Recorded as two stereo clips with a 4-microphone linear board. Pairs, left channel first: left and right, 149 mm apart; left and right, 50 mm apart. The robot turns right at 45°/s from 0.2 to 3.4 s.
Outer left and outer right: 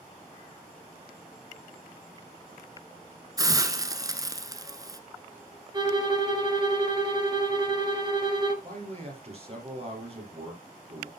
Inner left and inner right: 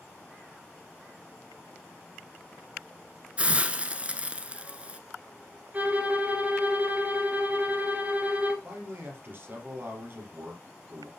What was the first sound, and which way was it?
A hiss, 25° right (ahead or behind).